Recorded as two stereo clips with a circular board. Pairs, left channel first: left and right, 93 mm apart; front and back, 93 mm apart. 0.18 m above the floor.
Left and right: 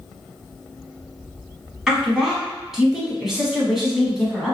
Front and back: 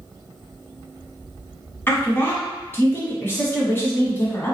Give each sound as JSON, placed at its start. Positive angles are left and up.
{"t": 1.9, "sound": "a woman speaking", "azimuth_deg": -15, "distance_m": 1.0}